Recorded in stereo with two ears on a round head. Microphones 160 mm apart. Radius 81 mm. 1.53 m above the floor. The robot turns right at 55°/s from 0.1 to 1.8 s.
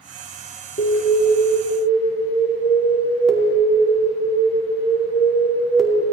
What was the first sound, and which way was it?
An alarm, 125° left.